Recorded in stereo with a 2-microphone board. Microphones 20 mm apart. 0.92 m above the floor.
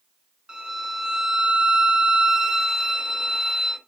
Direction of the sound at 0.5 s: 40° right (ahead or behind).